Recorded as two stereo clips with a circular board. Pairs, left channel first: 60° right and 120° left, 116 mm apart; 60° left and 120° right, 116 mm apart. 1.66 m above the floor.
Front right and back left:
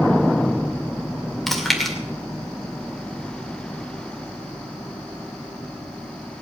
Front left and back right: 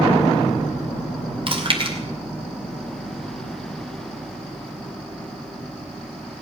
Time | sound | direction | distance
1.5 | chewing | 145° right | 2 m